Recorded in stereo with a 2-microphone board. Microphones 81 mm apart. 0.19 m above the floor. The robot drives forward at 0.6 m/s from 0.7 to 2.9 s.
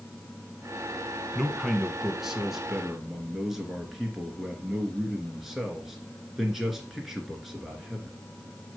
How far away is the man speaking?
About 1.3 m.